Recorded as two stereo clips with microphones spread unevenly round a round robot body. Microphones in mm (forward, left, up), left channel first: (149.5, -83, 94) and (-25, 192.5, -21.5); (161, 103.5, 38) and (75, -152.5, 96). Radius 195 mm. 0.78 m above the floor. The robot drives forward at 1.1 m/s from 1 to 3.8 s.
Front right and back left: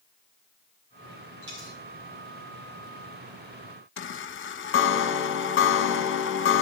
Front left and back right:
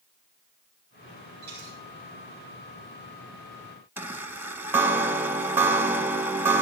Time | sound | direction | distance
1.4 | a dropped coin | 175° right | 3 m
4.0 | a chime | 5° right | 0.8 m